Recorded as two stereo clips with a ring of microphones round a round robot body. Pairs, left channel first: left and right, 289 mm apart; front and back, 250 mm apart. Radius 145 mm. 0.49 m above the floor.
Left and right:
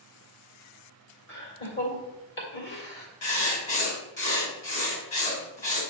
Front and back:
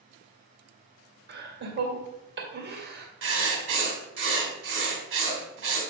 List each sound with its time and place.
1.3 s laughter: 135° left, 2.5 m
3.2 s writing: 150° left, 2 m